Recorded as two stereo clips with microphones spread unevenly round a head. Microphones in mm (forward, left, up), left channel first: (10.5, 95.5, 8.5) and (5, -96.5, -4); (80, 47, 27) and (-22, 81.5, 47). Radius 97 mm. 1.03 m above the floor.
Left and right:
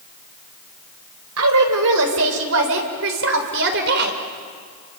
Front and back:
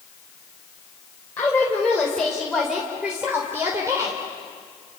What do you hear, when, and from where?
1.4 s a woman speaking: 100° right, 4 m; by 4.2 s 130° right, 3.5 m